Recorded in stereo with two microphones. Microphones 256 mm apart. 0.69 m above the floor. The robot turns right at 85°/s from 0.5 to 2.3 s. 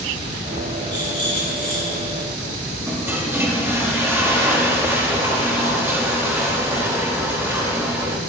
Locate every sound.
0.9 s a rattle: 40° left, 3.5 m; by 2.2 s 150° left, 3.5 m
2.9 s a toilet flushing: 10° right (ahead or behind), 1.2 m